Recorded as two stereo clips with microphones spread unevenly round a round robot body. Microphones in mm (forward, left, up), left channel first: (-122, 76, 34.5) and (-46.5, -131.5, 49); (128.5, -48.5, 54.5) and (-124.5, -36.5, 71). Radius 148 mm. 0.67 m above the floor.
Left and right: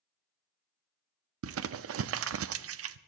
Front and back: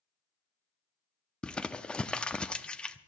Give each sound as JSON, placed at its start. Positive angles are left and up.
{"t": 1.4, "sound": "crumpling", "azimuth_deg": -90, "distance_m": 0.6}